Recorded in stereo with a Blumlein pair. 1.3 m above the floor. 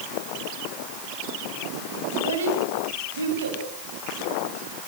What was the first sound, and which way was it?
A child speaking, 60° right.